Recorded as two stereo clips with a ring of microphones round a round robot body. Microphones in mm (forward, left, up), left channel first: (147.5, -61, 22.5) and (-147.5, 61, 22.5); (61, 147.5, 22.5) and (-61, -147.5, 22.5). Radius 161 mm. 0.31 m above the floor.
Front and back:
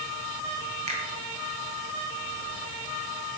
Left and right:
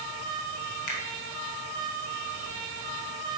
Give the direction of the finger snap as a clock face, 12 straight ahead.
9 o'clock.